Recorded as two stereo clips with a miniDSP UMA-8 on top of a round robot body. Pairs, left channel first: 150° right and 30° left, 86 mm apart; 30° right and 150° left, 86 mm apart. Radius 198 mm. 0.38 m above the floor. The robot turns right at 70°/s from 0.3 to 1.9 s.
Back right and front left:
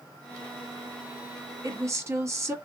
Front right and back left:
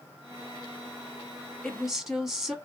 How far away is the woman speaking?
About 1.4 m.